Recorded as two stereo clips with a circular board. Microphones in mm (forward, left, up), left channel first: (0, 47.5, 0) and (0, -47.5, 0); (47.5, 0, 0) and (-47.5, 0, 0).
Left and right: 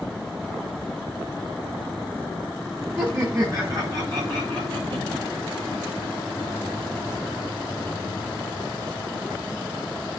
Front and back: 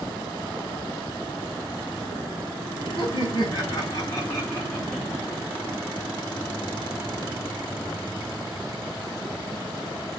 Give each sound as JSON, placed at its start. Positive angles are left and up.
{"t": 3.0, "sound": "laughter", "azimuth_deg": -35, "distance_m": 4.0}